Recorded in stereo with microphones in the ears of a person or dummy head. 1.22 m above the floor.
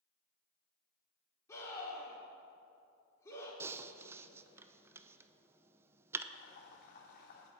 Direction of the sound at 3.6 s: 15° right (ahead or behind).